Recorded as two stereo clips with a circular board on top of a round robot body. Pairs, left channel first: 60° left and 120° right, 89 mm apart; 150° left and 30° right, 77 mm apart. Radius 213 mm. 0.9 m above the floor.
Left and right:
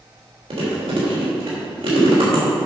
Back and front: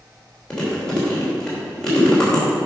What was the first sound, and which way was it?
Chewing, 130° right.